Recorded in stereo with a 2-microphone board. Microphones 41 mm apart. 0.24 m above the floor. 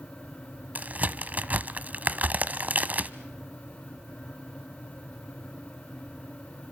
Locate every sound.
0.8 s a crack: 40° right (ahead or behind), 0.9 m